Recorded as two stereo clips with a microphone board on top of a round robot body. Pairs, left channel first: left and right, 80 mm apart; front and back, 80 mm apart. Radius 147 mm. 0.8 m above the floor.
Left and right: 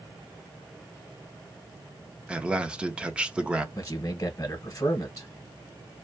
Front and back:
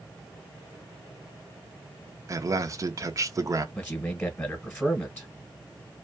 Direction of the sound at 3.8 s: 60° left.